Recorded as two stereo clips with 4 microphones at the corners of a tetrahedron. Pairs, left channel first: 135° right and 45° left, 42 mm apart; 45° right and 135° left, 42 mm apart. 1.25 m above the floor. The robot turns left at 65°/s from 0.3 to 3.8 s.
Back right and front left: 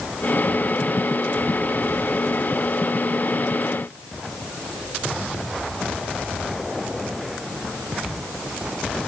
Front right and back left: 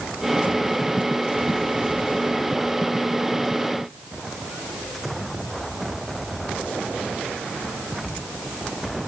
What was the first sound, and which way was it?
Only background noise.